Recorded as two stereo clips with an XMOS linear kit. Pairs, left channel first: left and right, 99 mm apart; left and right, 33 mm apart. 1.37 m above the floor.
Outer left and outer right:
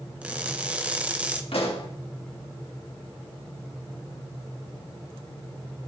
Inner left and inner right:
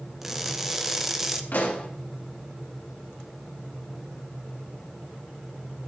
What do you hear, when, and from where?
0.2 s crushing: 15° right (ahead or behind), 0.7 m
1.5 s a pop: 65° left (ahead or behind), 1.6 m